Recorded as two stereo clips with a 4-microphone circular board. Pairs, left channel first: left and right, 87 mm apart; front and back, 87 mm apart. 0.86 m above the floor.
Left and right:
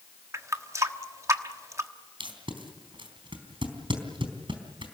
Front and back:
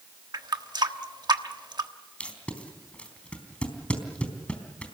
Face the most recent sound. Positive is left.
turn(degrees=-75)